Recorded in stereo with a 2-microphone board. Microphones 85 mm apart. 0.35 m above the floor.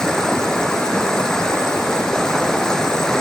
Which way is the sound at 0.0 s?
10° left (ahead or behind).